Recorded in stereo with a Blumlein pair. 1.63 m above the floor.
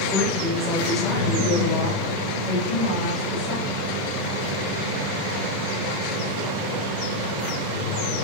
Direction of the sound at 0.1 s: 10° left.